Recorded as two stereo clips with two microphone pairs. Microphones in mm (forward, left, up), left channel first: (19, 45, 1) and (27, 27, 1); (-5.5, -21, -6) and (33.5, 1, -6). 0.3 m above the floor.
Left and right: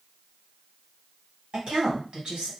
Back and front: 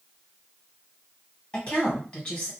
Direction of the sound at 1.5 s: 90° right.